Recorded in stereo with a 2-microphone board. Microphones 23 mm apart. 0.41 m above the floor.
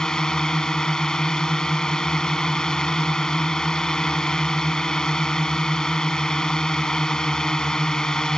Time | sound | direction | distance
0.0 | a drone | 35° left (ahead or behind) | ?